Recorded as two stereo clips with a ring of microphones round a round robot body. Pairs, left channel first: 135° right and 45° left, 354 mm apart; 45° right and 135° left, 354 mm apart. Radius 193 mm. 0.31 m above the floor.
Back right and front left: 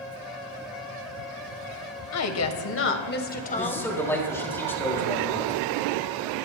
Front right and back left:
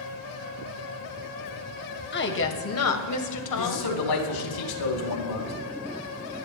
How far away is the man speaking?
About 3.5 m.